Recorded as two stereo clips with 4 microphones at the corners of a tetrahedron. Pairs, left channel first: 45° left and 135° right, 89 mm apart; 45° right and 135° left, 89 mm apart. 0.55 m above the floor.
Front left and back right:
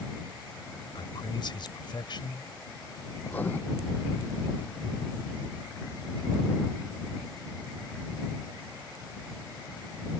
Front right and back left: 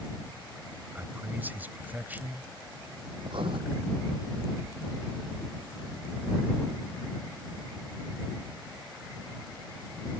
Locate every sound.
0.9 s a man speaking: 65° left
3.2 s writing: 115° left